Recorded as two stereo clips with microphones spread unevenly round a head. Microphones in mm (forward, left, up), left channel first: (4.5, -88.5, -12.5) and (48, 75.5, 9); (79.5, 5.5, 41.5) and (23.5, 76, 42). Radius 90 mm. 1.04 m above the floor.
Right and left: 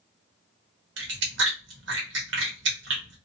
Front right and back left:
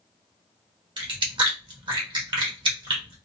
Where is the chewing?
100° left, 1.2 m.